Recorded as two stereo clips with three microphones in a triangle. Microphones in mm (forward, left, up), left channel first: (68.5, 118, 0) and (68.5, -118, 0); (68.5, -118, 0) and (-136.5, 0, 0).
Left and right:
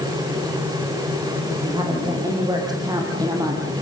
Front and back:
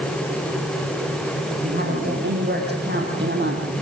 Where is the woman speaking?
160° right, 6 m; by 3.6 s 165° right, 4.5 m.